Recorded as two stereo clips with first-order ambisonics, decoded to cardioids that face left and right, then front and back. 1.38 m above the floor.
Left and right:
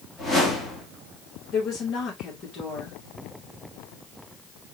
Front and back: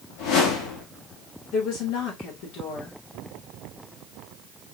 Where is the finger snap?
I don't hear a finger snap.